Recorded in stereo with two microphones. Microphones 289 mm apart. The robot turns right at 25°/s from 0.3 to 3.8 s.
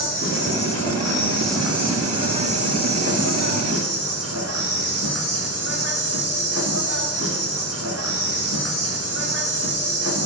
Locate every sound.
0.0 s an insect: 150° left, 2.5 m; by 10.3 s 125° right, 2.5 m